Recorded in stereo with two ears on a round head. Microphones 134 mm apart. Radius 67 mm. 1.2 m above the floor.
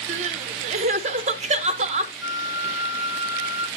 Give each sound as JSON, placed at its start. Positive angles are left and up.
{"t": 0.1, "sound": "crying", "side_deg": -50, "distance_m": 0.8}
{"t": 2.2, "sound": "a flute", "side_deg": -10, "distance_m": 0.9}